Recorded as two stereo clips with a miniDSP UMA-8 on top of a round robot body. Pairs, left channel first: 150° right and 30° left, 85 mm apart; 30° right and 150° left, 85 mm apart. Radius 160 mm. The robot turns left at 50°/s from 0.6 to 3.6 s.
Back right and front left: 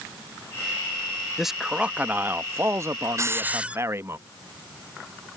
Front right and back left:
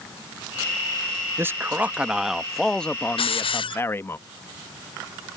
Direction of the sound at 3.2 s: 25° right.